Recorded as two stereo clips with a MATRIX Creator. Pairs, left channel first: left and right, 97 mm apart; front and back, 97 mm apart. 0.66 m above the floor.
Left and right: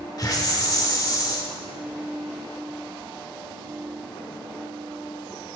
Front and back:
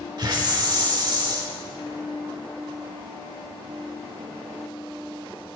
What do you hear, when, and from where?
0.2 s a hiss: 140° left, 1.2 m